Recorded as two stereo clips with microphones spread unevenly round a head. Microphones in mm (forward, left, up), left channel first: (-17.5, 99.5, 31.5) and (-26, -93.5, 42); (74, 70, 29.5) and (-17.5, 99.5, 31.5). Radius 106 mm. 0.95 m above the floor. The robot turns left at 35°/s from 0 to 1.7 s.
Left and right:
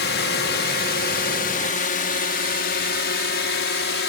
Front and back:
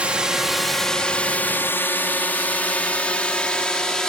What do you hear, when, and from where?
0.0 s a drone: 85° left; by 4.1 s 65° left